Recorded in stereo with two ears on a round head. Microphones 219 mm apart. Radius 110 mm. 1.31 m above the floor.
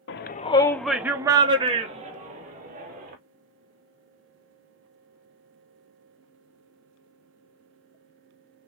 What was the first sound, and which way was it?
A shout, 50° left (ahead or behind).